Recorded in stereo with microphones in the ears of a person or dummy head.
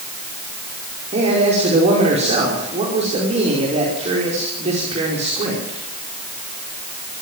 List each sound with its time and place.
1.1 s a man speaking: 40° right (ahead or behind), 5 m